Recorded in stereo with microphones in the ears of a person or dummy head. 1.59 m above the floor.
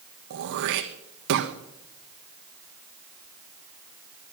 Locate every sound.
0.3 s throat clearing: 65° right (ahead or behind), 1.3 m